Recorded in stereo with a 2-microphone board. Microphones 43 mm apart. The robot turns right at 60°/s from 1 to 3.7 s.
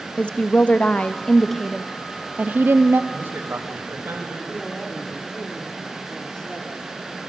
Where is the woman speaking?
145° left, 1.0 m; by 3.0 s 95° right, 1.0 m.